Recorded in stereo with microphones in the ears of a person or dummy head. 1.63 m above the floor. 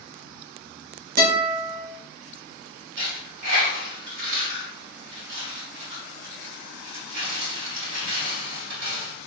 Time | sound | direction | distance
1.2 | a guitar | 55° right (ahead or behind) | 1.3 m
3.0 | a dropped coin | 60° right (ahead or behind) | 1.9 m